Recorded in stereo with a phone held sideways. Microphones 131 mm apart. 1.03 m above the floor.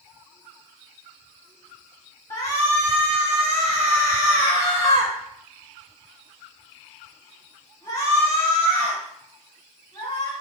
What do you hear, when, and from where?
2.3 s a shout: 25° left (ahead or behind), 1.3 m